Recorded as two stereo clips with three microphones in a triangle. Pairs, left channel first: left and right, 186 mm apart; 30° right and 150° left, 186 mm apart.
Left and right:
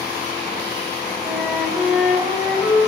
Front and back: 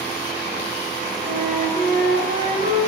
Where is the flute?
175° right, 7 m.